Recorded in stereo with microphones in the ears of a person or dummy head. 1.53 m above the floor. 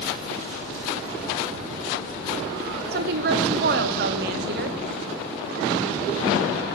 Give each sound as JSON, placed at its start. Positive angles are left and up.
{"t": 2.9, "sound": "a woman speaking", "side_deg": -60, "distance_m": 1.1}